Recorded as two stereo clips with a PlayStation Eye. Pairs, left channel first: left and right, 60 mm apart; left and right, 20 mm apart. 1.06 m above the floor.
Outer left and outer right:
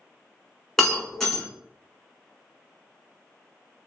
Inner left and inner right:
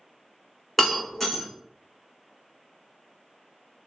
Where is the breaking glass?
5° left (ahead or behind), 1.3 m.